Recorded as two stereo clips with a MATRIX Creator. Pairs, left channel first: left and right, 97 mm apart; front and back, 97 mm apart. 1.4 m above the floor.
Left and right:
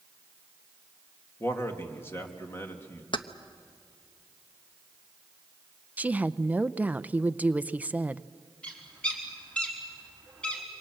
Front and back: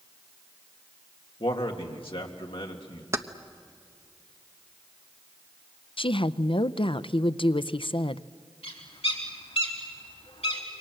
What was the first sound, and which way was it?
A man speaking, 25° left.